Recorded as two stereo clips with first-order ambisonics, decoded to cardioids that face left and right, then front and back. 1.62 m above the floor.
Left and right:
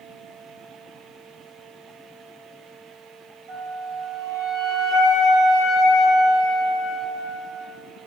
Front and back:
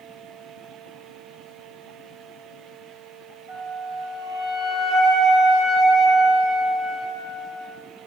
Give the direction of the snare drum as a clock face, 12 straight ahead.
No snare drum in this recording.